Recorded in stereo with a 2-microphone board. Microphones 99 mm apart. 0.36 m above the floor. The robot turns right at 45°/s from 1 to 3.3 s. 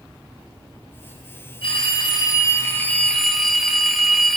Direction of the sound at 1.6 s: 105° left.